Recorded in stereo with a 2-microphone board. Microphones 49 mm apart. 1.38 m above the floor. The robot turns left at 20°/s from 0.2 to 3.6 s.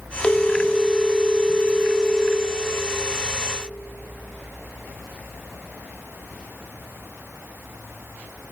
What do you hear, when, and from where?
0.2 s a phone ringing: 35° left, 0.6 m; by 2.5 s 15° right, 0.6 m